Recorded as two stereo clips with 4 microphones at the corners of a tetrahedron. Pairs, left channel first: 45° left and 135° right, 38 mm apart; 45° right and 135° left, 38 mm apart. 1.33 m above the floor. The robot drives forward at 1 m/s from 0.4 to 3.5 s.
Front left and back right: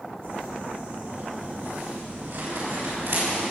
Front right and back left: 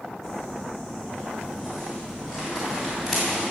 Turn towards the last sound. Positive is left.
turn(degrees=-145)